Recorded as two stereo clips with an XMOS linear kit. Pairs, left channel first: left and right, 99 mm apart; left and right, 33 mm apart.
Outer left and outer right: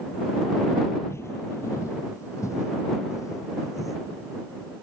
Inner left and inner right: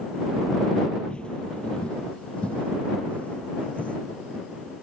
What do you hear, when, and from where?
1.1 s footsteps: 25° left (ahead or behind); by 4.0 s 35° left (ahead or behind)